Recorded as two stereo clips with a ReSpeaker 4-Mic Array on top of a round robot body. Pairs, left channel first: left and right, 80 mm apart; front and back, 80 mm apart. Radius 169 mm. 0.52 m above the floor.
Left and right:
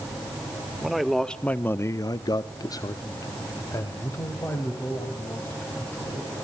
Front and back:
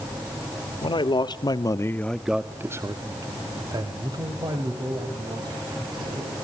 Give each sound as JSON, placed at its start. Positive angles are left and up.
{"t": 0.8, "sound": "a man speaking", "azimuth_deg": 0, "distance_m": 1.9}